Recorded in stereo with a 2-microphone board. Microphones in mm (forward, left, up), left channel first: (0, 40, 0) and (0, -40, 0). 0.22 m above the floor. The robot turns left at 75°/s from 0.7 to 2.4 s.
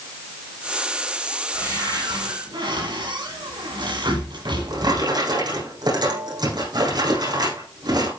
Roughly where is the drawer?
Right.